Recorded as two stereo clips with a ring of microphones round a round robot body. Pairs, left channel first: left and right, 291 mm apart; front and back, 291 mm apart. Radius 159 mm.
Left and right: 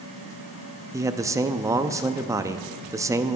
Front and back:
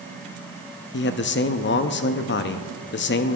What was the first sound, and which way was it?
A man speaking, 15° right.